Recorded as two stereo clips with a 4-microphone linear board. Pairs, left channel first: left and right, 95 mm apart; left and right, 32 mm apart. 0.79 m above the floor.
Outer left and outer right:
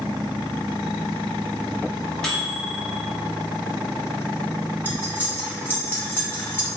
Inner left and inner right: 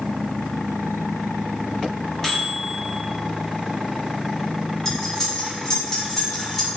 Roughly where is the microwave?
Centre.